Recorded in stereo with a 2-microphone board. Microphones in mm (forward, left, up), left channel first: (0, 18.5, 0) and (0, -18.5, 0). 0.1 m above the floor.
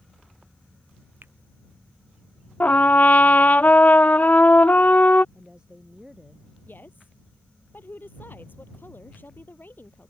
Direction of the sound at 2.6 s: 50° left (ahead or behind).